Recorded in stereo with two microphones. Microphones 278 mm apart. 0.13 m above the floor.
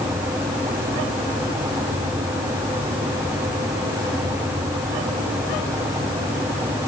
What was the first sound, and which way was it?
Only background noise.